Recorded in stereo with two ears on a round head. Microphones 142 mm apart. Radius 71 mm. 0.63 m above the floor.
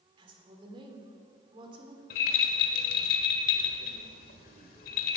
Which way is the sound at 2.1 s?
55° left (ahead or behind).